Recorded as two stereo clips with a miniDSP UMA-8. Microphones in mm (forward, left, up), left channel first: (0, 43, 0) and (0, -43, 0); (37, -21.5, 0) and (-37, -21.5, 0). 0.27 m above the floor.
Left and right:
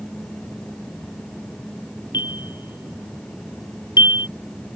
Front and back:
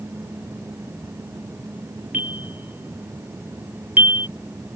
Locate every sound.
2.1 s a bell: 115° left